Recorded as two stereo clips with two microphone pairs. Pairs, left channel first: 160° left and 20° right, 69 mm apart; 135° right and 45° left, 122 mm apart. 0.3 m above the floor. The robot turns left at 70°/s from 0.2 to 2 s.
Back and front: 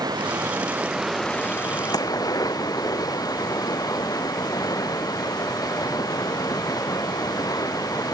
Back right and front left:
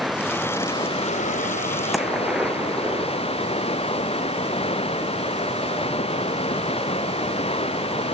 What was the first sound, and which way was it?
Running water, 45° right.